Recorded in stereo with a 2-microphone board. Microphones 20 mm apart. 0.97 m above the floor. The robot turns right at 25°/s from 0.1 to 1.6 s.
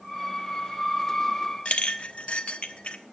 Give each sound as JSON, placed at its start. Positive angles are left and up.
{"t": 1.6, "sound": "a clink", "side_deg": 75, "distance_m": 1.0}